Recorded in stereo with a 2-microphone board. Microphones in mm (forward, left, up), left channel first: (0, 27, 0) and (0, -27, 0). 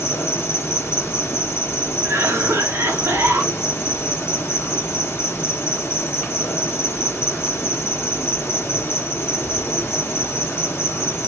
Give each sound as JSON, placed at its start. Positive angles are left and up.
{"t": 0.0, "sound": "an insect", "side_deg": 55, "distance_m": 0.9}
{"t": 2.0, "sound": "a cough", "side_deg": -60, "distance_m": 1.6}